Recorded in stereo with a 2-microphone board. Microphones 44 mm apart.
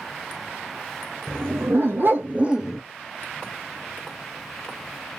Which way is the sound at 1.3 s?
70° right (ahead or behind).